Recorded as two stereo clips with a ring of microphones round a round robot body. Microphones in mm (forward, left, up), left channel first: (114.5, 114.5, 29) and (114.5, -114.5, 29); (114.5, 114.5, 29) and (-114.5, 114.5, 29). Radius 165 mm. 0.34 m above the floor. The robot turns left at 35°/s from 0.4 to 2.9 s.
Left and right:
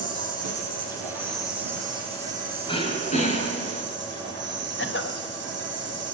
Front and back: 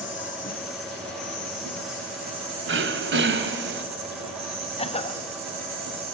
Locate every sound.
0.0 s an insect: 80° right, 7 m; by 6.2 s 165° right, 7 m
2.7 s throat clearing: 160° left, 2.5 m; by 3.9 s 155° left, 2.5 m
4.8 s a cough: 60° left, 2.5 m